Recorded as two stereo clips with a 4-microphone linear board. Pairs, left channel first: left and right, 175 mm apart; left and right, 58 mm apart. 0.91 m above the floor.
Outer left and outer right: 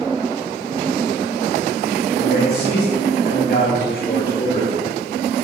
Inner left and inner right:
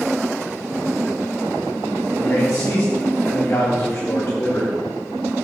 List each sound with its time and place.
2.2 s a man speaking: 55° left (ahead or behind), 1.9 m; by 4.8 s 40° left (ahead or behind), 2 m